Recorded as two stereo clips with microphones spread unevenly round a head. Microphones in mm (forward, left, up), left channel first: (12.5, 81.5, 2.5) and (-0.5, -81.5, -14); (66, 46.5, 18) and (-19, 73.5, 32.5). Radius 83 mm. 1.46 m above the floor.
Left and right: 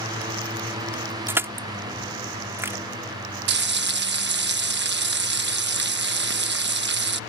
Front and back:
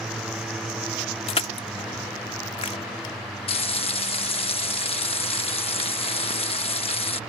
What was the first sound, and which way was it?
Crushing, 15° right.